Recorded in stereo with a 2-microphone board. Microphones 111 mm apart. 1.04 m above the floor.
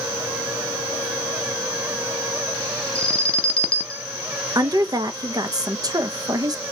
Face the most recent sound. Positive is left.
turn(degrees=-35)  # may be behind; listen again after turning